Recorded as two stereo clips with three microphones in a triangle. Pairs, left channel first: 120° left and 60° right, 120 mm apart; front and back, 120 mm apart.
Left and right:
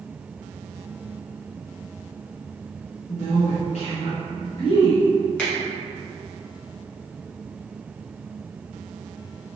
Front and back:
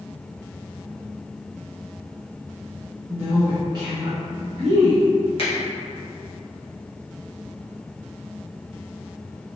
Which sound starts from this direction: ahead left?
A finger snap, at 5.4 s.